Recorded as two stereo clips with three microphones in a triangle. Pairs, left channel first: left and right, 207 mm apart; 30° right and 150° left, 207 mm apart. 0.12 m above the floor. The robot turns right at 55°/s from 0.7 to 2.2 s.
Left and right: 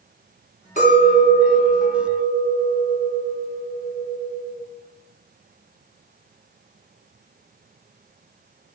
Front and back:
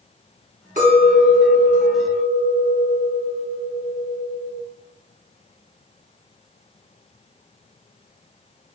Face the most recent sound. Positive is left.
turn(degrees=-160)